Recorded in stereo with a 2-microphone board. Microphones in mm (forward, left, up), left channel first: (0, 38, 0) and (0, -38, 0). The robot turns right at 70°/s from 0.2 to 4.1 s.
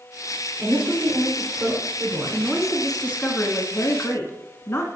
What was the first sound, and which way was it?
A woman speaking, 10° right (ahead or behind).